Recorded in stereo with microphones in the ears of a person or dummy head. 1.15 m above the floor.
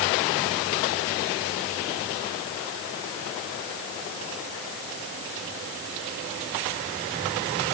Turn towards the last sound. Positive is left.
No sound to turn to.